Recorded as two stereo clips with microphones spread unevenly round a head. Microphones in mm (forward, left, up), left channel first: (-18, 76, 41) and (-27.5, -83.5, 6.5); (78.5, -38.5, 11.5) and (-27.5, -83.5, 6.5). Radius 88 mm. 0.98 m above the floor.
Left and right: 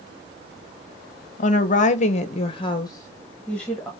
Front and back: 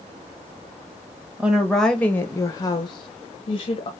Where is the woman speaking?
125° left, 0.9 m; by 3.9 s 10° right, 1.1 m.